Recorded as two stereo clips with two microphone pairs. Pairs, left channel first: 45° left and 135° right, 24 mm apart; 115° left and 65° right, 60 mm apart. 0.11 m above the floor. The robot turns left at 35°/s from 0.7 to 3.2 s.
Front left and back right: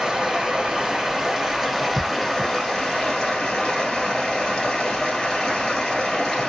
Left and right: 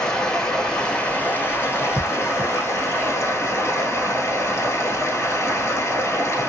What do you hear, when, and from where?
0.0 s running water: 175° right, 1.5 m; by 6.5 s 100° left, 1.5 m